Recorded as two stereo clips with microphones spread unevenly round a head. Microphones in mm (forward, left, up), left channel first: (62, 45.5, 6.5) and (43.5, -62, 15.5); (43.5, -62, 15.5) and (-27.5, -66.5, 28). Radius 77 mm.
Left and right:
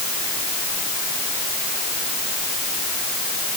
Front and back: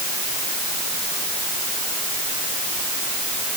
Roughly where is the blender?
No blender in this recording.